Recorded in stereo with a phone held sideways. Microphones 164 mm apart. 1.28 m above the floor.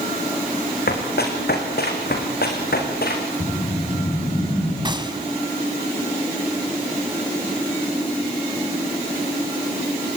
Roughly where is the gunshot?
Right.